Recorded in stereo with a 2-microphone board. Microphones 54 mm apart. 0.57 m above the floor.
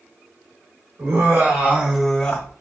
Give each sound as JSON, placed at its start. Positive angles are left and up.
{"t": 1.0, "sound": "laughter", "side_deg": -50, "distance_m": 1.4}